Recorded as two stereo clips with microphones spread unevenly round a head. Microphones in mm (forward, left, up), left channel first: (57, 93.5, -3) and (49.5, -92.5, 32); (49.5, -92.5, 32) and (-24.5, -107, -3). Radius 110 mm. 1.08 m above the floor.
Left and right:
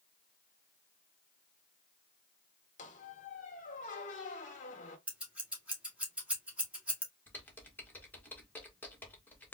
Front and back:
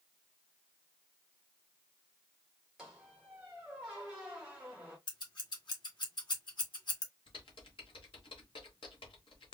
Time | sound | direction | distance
2.8 | a squeak | 65° left | 0.8 m
5.1 | scissors | 10° right | 1.8 m
7.3 | typing on a keyboard | 10° left | 1.3 m